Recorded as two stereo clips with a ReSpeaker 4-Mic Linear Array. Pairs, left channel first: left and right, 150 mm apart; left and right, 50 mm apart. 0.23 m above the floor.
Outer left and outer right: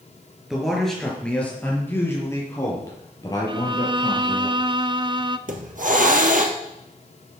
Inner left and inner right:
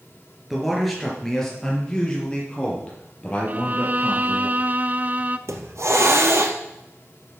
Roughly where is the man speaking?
Centre.